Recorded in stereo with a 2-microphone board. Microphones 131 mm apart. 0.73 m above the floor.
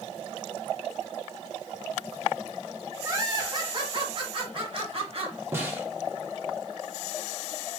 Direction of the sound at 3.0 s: 25° right (ahead or behind).